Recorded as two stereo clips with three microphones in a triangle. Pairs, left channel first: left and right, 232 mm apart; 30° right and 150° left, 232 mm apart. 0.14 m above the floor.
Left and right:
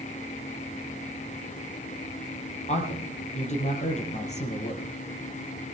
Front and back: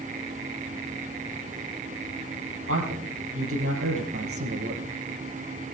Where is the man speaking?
150° left, 5 m.